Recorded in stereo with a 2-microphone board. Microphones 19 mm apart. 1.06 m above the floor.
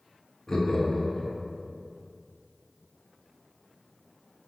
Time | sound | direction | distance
0.5 | laughter | 30° left (ahead or behind) | 1.8 m